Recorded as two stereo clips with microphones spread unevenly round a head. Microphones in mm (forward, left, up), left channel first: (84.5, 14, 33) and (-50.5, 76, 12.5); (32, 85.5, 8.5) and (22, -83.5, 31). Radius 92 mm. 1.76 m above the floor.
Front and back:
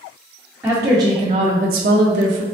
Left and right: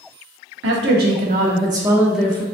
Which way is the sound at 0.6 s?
125° right.